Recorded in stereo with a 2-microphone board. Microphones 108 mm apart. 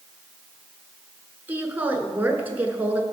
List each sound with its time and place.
1.5 s a woman speaking: 20° right (ahead or behind), 1.1 m